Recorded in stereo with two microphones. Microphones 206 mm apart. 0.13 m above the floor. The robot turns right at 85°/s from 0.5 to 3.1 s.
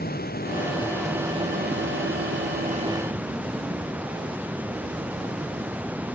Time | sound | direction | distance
0.0 | running water | 130° left | ?